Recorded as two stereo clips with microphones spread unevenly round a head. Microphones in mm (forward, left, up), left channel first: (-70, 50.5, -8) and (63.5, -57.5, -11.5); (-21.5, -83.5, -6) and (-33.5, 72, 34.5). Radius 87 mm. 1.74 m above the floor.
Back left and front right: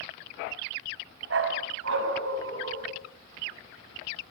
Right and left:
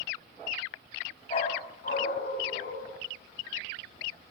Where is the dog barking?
20° right, 5 m; by 2.9 s 40° right, 6.5 m.